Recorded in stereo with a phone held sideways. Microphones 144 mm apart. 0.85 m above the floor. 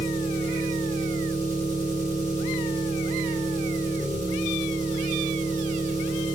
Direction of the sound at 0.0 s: 60° right (ahead or behind).